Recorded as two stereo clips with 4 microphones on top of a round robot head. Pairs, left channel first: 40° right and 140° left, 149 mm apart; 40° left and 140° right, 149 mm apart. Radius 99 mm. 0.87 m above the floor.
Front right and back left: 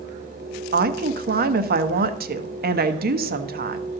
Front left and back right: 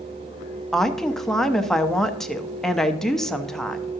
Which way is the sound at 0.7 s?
125° left.